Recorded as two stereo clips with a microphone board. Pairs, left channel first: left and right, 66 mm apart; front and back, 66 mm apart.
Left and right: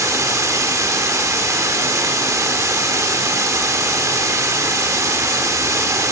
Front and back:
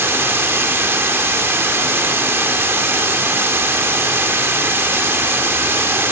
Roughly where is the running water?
Behind right.